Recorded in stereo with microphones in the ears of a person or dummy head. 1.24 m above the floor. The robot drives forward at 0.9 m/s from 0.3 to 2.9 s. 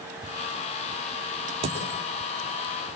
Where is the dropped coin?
30° right (ahead or behind), 4 m.